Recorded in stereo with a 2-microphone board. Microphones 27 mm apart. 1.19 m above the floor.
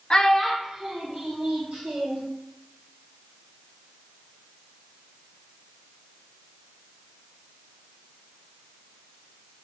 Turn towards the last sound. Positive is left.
turn(degrees=-65)  # may be behind; listen again after turning